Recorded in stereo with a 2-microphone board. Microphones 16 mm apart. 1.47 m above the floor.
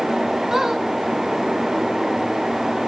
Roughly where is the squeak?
Right.